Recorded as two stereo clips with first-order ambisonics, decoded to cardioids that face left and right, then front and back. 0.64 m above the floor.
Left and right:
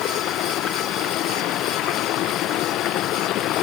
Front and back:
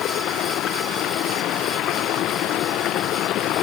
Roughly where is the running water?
Ahead left.